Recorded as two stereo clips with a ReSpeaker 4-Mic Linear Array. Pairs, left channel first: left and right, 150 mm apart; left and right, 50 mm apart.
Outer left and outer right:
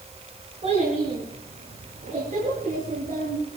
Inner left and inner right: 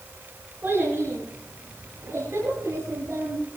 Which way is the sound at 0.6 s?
45° right (ahead or behind).